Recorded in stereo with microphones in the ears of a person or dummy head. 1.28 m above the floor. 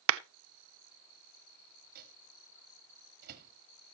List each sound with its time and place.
0.1 s a clap: 75° right (ahead or behind), 0.6 m
1.9 s a microwave: 55° right (ahead or behind), 1.6 m